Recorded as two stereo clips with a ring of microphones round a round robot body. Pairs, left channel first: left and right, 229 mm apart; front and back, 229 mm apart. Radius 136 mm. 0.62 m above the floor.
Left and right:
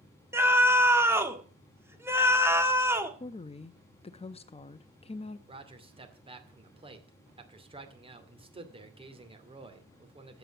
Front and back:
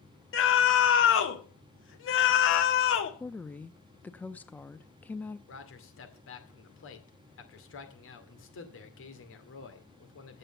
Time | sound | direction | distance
0.3 | a scream | 10° right | 1.7 m
3.2 | a woman speaking | 75° left | 0.6 m
5.5 | a man speaking | 25° right | 2.5 m